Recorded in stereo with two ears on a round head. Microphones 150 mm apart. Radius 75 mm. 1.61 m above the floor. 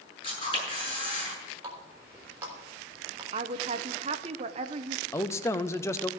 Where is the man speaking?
15° left (ahead or behind), 0.6 m.